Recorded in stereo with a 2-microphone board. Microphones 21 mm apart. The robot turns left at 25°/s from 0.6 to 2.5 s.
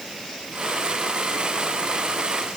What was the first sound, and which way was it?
Only background noise.